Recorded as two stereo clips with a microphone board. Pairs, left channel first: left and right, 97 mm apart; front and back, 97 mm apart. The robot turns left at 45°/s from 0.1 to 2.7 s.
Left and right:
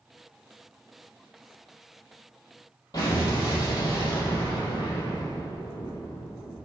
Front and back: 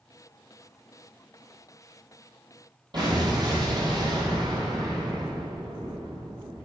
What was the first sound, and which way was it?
An explosion, 140° left.